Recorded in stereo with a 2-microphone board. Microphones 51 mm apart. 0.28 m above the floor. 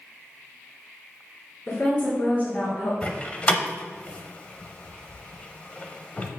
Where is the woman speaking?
35° left (ahead or behind), 2.5 m; by 2.9 s 55° left (ahead or behind), 2.5 m.